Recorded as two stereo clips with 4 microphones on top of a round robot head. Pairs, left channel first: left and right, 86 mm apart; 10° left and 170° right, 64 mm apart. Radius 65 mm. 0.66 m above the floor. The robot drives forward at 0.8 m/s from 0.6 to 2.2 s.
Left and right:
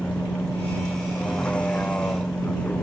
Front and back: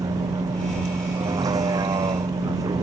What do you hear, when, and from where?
0.0 s a vehicle: 170° left